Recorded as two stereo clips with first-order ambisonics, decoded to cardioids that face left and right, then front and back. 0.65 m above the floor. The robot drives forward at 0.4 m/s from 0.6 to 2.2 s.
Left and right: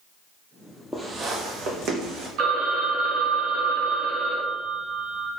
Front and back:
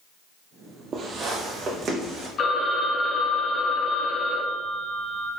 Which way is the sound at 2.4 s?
55° right.